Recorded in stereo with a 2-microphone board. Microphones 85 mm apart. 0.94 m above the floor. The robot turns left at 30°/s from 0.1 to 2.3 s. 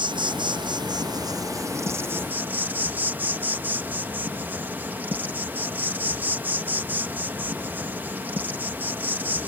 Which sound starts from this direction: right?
An insect, at 0.0 s.